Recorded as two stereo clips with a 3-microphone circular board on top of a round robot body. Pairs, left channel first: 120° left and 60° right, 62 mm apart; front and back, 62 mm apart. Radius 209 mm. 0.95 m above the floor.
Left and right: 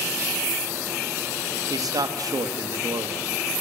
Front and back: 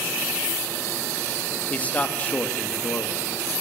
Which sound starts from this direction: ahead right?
A man speaking, at 1.7 s.